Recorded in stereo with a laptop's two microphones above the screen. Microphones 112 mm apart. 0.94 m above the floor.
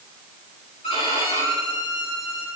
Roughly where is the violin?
Left.